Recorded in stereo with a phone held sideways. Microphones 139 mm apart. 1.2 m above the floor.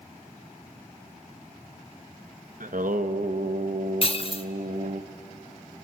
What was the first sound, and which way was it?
Singing, 75° right (ahead or behind).